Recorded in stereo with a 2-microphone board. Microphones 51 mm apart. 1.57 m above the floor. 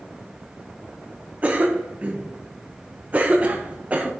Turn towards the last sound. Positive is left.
turn(degrees=-30)  # may be behind; listen again after turning